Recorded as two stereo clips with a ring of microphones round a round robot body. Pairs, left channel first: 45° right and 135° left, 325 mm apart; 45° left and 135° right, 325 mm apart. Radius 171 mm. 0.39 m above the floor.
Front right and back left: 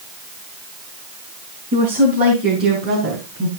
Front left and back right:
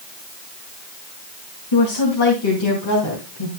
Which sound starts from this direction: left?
A woman speaking, at 1.7 s.